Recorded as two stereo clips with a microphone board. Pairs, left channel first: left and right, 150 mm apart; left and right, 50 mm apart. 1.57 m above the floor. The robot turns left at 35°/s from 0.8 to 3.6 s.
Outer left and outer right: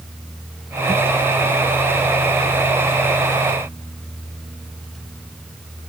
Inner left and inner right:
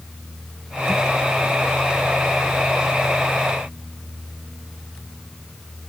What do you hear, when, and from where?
Only background noise.